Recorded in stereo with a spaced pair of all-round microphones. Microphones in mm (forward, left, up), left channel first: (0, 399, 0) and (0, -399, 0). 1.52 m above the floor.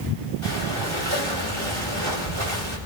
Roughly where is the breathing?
Right.